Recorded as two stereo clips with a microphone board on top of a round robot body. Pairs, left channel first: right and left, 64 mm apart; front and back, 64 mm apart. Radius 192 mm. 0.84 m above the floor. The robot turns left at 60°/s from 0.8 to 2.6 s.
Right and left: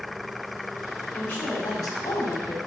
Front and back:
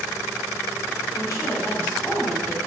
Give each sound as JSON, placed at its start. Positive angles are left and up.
{"t": 1.1, "sound": "a woman speaking", "azimuth_deg": -10, "distance_m": 3.5}